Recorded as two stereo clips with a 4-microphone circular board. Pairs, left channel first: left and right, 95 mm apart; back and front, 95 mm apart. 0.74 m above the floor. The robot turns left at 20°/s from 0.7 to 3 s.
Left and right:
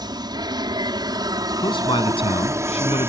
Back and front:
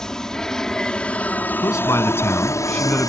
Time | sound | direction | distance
0.0 | an aircraft | 100° right | ?
1.6 | a man speaking | 125° left | ?